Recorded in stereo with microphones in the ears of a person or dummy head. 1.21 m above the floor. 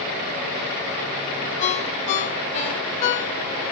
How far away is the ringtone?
About 1.7 m.